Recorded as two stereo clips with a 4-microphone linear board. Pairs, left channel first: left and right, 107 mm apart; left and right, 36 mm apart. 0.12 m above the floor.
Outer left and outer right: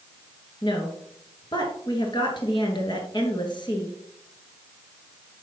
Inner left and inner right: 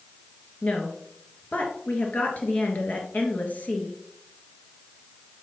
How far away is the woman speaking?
About 1.7 m.